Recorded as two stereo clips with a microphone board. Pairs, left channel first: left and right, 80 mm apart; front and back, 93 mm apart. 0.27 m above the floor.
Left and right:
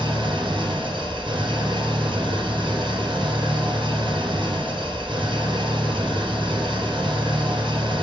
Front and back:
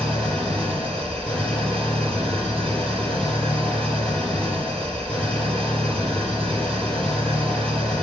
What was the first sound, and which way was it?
An engine running, 80° right.